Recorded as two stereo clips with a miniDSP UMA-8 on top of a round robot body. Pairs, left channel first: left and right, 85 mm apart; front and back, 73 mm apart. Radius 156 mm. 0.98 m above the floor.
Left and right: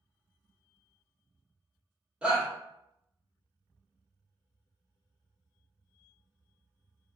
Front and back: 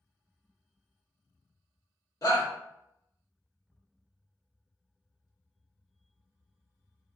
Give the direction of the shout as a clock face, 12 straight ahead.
12 o'clock.